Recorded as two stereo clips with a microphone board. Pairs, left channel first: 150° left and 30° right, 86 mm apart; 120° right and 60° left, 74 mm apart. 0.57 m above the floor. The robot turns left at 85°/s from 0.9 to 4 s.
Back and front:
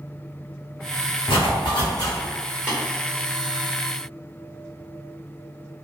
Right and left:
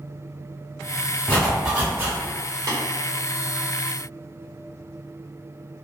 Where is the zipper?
170° left, 1.6 m; by 2.2 s 95° left, 1.6 m.